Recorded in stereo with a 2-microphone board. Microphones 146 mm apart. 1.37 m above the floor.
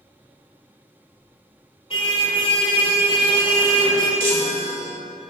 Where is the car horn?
40° left (ahead or behind), 3.5 m.